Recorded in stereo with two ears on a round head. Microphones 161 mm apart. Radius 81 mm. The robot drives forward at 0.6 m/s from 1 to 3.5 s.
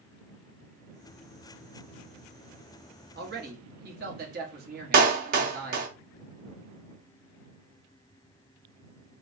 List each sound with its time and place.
3.1 s a man speaking: 55° right (ahead or behind), 1.2 m
4.9 s a clap: 45° right (ahead or behind), 0.8 m